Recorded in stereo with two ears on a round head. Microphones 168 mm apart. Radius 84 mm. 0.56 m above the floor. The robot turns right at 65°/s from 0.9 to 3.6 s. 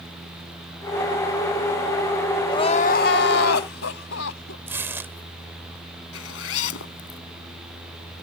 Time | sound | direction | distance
2.5 | crying | 20° left | ?
4.7 | tearing paper | 10° right (ahead or behind) | ?
6.1 | a zipper | 85° left | ?